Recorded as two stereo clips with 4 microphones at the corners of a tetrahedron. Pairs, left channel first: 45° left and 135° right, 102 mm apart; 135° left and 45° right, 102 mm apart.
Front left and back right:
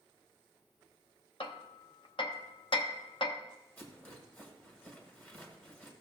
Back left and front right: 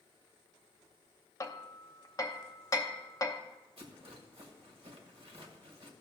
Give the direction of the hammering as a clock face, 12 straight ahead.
9 o'clock.